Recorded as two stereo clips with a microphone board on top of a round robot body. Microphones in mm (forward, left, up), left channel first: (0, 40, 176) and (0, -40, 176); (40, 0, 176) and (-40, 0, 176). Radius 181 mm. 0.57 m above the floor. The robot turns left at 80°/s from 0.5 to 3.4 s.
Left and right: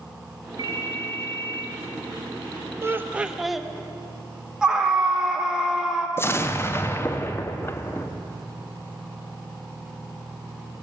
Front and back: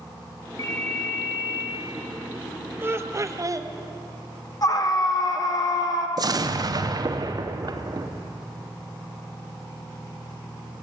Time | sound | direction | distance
0.6 | a ringtone | 50° right | 1.4 m
2.8 | laughter | 130° right | 1.1 m
4.6 | a scream | 10° right | 1.5 m
6.2 | an explosion | 150° left | 0.8 m